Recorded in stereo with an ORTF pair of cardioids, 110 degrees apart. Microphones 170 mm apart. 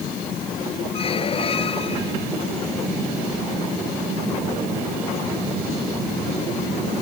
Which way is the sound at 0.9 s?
35° left.